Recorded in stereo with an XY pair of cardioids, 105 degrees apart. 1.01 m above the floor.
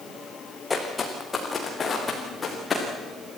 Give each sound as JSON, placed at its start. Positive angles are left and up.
{"t": 0.7, "sound": "footsteps", "azimuth_deg": 25, "distance_m": 4.5}